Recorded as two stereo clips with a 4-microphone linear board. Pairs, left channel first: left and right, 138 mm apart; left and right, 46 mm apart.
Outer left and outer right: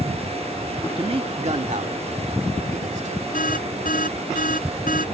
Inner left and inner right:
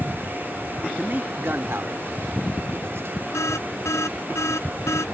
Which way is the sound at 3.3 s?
80° left.